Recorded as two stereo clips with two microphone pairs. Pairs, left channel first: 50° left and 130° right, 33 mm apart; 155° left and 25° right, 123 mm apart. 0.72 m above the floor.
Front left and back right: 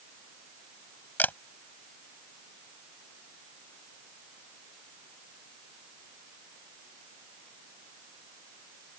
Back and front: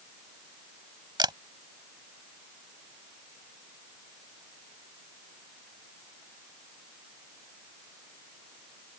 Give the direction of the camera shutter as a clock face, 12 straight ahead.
11 o'clock.